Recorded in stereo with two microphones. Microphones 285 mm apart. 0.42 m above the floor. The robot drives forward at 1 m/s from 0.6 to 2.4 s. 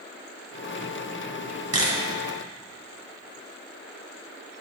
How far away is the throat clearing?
No throat clearing in this recording.